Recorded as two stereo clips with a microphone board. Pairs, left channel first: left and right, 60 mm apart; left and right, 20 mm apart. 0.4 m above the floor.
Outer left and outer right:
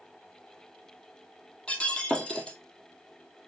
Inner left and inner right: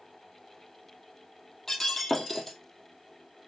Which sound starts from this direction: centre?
Breaking glass, at 1.7 s.